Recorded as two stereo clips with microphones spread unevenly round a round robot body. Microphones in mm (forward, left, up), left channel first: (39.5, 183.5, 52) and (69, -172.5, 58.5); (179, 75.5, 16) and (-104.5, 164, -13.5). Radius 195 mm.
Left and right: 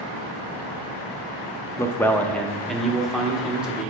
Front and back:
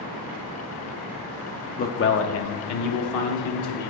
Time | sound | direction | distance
1.8 | a man speaking | 25° left | 0.6 m